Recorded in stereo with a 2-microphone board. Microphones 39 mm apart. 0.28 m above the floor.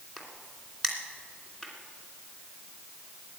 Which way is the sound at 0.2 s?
10° left (ahead or behind).